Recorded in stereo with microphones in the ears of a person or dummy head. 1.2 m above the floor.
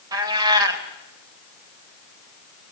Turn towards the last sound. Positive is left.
turn(degrees=-25)  # may be behind; listen again after turning